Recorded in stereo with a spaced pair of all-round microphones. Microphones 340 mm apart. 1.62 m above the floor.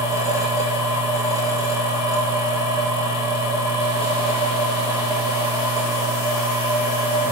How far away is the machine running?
About 1.9 m.